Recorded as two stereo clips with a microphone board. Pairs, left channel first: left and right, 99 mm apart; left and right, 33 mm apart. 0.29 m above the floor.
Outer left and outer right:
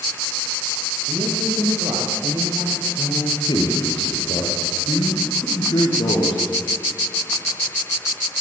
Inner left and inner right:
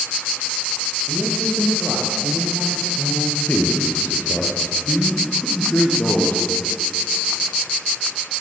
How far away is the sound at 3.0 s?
About 6.5 m.